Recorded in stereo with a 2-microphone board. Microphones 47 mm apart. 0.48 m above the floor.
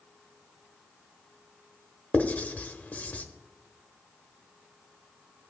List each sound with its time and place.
2.1 s writing: 35° left (ahead or behind), 0.9 m